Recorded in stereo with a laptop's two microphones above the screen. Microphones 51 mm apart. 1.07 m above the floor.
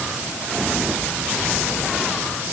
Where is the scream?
I don't hear a scream.